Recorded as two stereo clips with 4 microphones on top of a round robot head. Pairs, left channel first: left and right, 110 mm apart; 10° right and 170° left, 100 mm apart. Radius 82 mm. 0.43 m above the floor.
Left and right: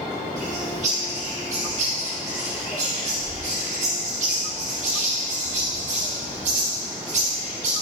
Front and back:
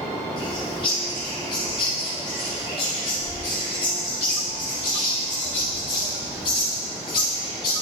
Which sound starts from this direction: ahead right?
A bird, at 0.4 s.